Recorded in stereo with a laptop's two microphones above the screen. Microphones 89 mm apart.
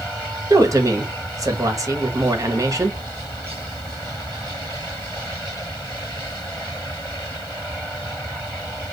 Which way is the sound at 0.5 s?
40° right (ahead or behind).